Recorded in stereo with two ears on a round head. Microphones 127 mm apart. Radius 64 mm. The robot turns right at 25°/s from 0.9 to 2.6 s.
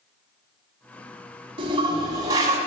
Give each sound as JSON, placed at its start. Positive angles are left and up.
{"t": 1.6, "sound": "a toilet flushing", "side_deg": -40, "distance_m": 1.3}